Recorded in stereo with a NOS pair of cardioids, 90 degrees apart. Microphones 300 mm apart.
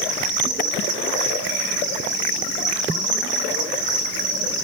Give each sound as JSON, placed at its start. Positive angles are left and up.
{"t": 0.0, "sound": "an insect", "azimuth_deg": -55, "distance_m": 1.2}